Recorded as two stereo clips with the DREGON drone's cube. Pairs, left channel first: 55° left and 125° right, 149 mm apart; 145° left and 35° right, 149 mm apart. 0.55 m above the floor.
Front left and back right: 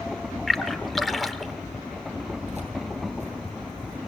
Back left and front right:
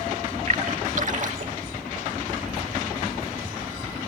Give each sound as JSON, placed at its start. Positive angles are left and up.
{"t": 0.5, "sound": "a splash", "azimuth_deg": -35, "distance_m": 1.1}
{"t": 2.4, "sound": "keys jangling", "azimuth_deg": -85, "distance_m": 7.5}